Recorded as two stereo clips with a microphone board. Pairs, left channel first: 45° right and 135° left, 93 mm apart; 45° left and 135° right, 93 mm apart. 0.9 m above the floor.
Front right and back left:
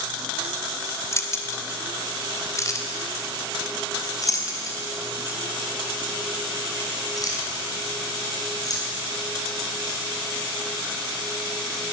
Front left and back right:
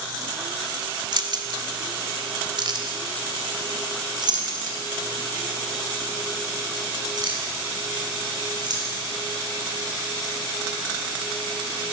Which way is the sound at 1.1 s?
105° right.